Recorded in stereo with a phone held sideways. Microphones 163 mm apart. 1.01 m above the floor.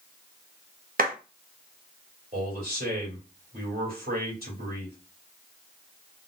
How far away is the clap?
About 1.0 m.